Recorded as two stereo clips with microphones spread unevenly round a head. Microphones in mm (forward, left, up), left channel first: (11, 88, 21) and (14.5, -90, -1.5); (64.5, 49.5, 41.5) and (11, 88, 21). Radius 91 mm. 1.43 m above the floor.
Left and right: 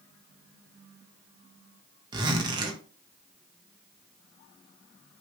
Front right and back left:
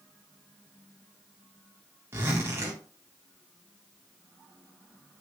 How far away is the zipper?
About 0.8 m.